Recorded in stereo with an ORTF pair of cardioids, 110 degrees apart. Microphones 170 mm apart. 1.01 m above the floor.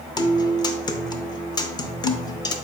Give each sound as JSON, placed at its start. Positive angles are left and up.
{"t": 0.2, "sound": "a guitar", "azimuth_deg": 25, "distance_m": 0.6}